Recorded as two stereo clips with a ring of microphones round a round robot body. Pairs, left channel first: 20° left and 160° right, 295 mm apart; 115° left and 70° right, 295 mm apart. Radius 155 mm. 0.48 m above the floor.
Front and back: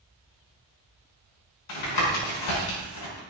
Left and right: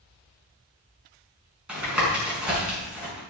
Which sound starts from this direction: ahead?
Tapping, at 1.7 s.